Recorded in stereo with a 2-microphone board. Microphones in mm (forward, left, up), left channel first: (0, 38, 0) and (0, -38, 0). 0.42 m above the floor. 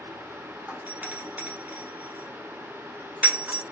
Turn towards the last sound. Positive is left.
turn(degrees=-20)  # may be behind; listen again after turning